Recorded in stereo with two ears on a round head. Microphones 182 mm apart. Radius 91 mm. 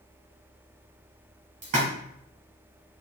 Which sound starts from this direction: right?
A splash, at 1.6 s.